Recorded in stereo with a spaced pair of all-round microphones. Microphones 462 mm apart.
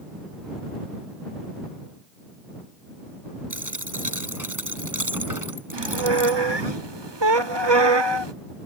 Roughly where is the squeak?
Right.